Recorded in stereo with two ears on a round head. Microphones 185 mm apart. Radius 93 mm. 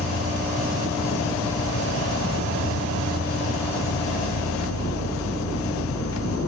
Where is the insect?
75° left (ahead or behind), 0.7 m.